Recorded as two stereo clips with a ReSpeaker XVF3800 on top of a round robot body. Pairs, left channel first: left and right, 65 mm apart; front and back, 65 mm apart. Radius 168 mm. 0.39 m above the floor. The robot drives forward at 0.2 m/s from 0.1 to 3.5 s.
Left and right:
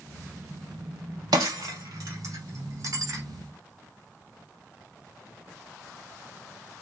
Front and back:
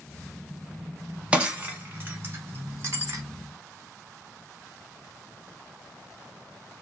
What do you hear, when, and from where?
1.3 s breaking glass: 105° right, 0.6 m; by 3.2 s 135° right, 0.8 m